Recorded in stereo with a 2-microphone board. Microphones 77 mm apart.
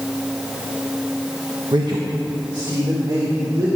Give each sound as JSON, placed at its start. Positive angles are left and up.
{"t": 1.7, "sound": "a man speaking", "side_deg": -65, "distance_m": 1.0}